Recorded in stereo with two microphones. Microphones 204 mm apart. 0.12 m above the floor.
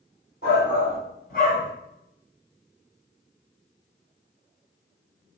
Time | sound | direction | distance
0.4 | a shout | 45° left (ahead or behind) | 1.8 m